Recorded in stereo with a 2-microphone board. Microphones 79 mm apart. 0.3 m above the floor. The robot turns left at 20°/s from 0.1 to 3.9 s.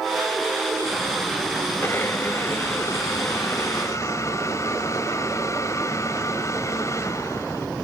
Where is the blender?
130° left, 1.7 m; by 7.7 s 90° left, 1.7 m.